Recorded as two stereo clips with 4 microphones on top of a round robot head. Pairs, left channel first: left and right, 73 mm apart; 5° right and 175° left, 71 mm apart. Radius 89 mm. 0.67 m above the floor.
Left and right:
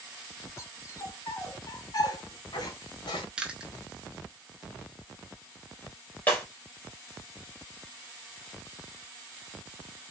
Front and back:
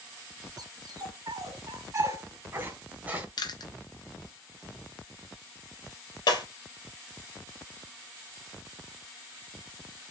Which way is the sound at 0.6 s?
140° left.